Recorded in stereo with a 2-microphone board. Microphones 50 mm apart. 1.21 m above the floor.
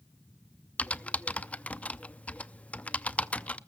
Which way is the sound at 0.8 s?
25° left (ahead or behind).